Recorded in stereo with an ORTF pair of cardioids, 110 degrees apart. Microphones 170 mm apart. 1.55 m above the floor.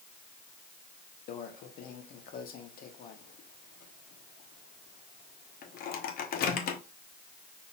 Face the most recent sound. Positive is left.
turn(degrees=60)